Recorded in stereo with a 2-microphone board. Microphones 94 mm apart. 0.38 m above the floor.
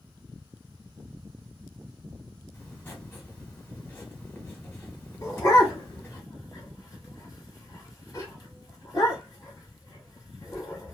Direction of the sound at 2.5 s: 25° left (ahead or behind).